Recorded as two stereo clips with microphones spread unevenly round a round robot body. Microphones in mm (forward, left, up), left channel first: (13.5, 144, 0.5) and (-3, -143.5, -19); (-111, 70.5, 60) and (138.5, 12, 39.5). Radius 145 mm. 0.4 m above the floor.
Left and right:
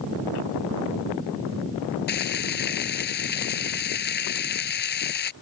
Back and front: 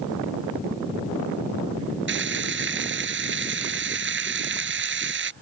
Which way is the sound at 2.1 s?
30° left.